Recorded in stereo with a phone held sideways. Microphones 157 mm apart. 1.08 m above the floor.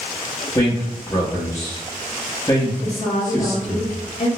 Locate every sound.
0.6 s a man speaking: 20° left (ahead or behind), 0.8 m
2.8 s a woman speaking: 45° left (ahead or behind), 0.8 m